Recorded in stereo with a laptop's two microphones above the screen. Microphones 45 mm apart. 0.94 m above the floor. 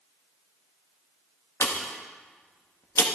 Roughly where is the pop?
Left.